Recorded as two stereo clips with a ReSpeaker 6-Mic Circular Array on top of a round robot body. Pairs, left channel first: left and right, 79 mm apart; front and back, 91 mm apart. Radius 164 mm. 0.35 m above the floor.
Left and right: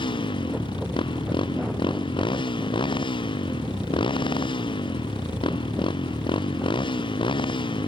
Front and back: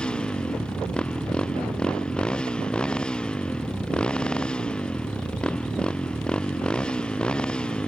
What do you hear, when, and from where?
0.0 s a motorcycle: 80° left